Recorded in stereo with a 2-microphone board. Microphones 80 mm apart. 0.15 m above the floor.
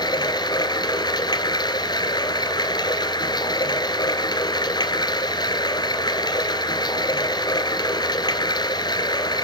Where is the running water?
60° left (ahead or behind), 1.3 m.